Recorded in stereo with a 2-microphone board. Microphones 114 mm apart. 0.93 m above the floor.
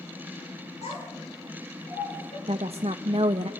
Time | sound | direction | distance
0.8 | a child speaking | 80° left | 9 m
2.5 | a woman speaking | 60° right (ahead or behind) | 0.5 m